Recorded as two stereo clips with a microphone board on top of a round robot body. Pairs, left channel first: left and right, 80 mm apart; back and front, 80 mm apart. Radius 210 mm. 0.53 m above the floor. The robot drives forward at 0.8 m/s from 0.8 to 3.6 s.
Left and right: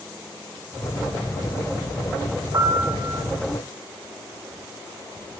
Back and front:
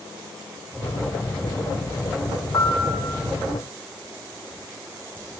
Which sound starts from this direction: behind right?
A piano, at 2.5 s.